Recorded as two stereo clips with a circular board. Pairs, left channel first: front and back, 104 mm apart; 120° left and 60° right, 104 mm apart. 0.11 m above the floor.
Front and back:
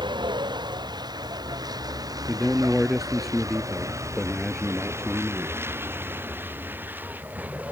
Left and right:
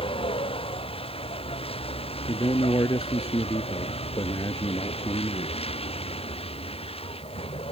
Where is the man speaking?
95° left.